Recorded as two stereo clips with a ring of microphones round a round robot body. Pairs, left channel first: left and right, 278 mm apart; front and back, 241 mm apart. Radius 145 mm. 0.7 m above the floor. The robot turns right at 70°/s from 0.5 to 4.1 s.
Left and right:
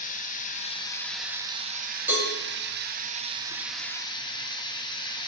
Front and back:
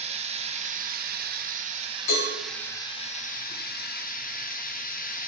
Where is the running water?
135° left, 0.9 m; by 5.3 s 25° left, 0.9 m.